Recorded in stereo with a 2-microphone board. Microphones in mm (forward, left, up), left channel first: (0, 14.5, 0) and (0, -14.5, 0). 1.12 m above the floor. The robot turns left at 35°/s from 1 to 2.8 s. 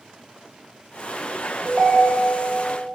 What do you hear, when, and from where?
1.6 s a ringtone: 25° right (ahead or behind), 0.5 m; by 2.5 s 50° right (ahead or behind), 0.5 m